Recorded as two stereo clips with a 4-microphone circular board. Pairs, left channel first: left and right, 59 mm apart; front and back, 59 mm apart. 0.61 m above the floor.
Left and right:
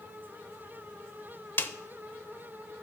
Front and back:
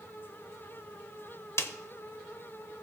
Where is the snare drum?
40° left, 0.7 m.